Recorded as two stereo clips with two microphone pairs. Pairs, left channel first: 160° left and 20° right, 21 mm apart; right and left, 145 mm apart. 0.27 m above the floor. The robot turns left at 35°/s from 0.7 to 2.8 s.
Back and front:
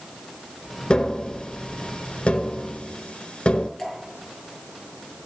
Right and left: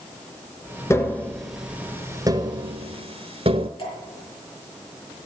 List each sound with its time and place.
0.9 s tapping: 160° right, 0.9 m; by 3.7 s 135° left, 0.9 m
3.8 s dripping: 135° right, 6 m